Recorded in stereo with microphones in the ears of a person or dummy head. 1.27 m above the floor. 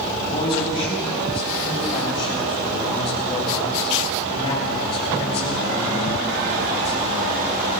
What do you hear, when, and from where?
0.2 s a man speaking: 25° left (ahead or behind), 7 m; by 7.4 s 30° left (ahead or behind), 3 m